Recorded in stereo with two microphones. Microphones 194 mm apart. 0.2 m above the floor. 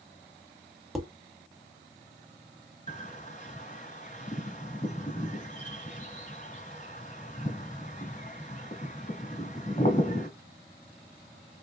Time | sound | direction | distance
0.9 | dishes clattering | centre (ahead or behind) | 0.9 m
2.9 | a bird | 40° left (ahead or behind) | 1.5 m